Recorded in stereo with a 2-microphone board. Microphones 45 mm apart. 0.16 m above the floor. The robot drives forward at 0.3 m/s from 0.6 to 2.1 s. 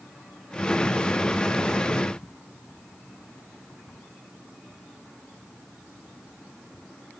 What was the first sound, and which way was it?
Only background noise.